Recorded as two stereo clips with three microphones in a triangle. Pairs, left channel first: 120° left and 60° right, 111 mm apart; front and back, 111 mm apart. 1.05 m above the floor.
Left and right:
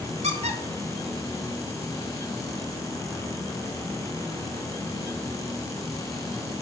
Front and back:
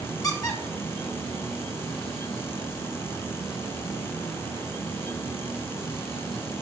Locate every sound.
0.2 s a squeak: 55° right, 1.7 m